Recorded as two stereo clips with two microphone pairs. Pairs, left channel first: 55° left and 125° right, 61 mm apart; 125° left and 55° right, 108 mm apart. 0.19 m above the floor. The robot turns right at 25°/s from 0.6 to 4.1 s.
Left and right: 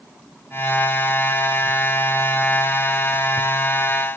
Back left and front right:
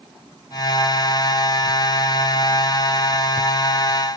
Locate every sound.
Only background noise.